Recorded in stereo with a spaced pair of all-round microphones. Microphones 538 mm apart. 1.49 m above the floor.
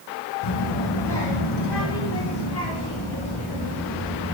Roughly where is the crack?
No crack in this recording.